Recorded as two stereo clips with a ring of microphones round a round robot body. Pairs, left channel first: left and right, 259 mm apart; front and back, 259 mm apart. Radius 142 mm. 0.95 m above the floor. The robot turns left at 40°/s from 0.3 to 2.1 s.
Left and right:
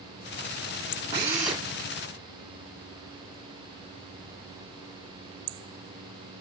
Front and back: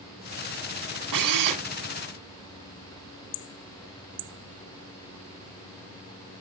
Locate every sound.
1.1 s a drill: 165° right, 1.9 m; by 1.6 s 175° left, 1.9 m